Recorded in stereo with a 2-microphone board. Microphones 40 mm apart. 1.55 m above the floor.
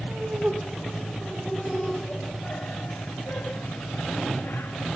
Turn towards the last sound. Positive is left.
turn(degrees=75)  # may be behind; listen again after turning